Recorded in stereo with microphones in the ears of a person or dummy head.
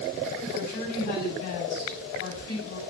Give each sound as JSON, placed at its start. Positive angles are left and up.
{"t": 0.5, "sound": "a woman speaking", "side_deg": 50, "distance_m": 4.0}